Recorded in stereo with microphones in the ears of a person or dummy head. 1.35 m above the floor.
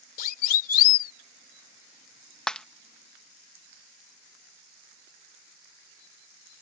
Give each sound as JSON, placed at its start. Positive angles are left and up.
{"t": 0.2, "sound": "a siren", "side_deg": 55}
{"t": 2.5, "sound": "breaking glass", "side_deg": 5}